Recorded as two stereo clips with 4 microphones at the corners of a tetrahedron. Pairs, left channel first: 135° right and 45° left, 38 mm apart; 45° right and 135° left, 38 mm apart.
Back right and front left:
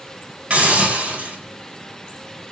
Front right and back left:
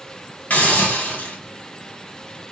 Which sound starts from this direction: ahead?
A hiss, at 0.5 s.